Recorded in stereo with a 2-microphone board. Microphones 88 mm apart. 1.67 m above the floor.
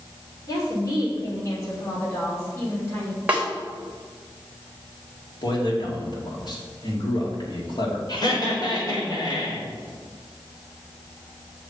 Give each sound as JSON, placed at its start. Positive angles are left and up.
{"t": 0.5, "sound": "a woman speaking", "side_deg": 45, "distance_m": 5.0}
{"t": 3.3, "sound": "a snare drum", "side_deg": -15, "distance_m": 3.5}
{"t": 5.4, "sound": "a man speaking", "side_deg": 55, "distance_m": 3.0}
{"t": 8.1, "sound": "laughter", "side_deg": 50, "distance_m": 5.0}